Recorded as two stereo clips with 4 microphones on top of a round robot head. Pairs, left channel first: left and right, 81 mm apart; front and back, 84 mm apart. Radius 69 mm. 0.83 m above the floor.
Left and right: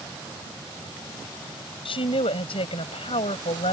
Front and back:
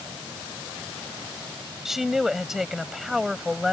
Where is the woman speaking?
90° left.